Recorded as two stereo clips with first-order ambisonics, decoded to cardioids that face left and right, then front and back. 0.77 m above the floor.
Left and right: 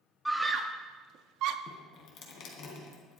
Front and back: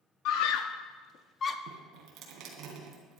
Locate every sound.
0.2 s a scream: 5° right, 1.0 m; by 1.6 s 70° right, 1.0 m
1.7 s dripping: 135° left, 3 m